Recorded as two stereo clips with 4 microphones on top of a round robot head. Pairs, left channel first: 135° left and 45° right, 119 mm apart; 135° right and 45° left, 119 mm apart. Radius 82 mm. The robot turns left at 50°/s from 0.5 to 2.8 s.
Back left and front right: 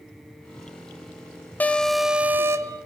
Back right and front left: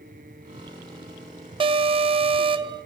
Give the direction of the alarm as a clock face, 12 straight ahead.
10 o'clock.